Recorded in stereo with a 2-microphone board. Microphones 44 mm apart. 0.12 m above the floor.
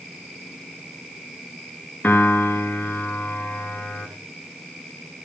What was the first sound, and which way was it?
A piano, 40° left (ahead or behind).